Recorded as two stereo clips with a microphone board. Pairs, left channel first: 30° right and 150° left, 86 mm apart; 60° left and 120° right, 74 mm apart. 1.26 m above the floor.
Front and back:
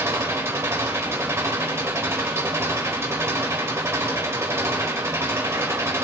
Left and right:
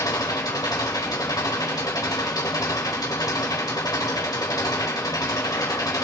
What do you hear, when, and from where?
0.0 s an engine running: 90° left, 3 m